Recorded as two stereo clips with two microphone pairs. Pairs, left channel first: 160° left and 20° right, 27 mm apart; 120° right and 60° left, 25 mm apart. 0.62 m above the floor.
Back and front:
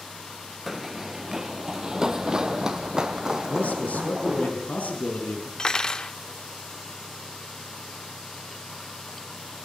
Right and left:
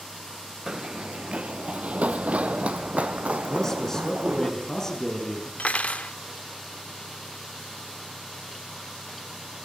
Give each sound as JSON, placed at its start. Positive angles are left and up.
{"t": 0.7, "sound": "running footsteps", "azimuth_deg": 55, "distance_m": 0.6}
{"t": 3.5, "sound": "a man speaking", "azimuth_deg": 175, "distance_m": 6.5}
{"t": 5.6, "sound": "cutlery clinking", "azimuth_deg": -140, "distance_m": 0.7}